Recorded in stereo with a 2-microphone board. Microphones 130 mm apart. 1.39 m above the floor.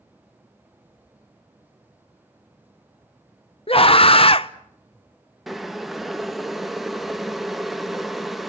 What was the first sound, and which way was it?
A scream, 45° left (ahead or behind).